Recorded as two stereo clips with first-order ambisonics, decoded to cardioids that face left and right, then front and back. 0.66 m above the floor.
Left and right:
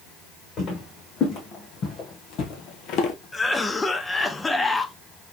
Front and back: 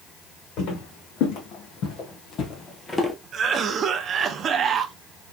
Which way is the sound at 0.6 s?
30° left.